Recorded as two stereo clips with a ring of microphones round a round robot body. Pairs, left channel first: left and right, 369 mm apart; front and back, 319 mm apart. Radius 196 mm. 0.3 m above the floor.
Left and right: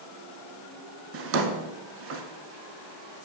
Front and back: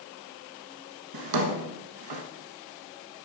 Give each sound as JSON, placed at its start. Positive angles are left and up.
{"t": 1.1, "sound": "a drawer", "azimuth_deg": -150, "distance_m": 1.0}